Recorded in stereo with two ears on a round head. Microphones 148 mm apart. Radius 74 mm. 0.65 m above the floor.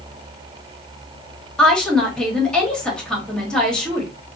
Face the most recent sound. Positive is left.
turn(degrees=5)  # may be behind; listen again after turning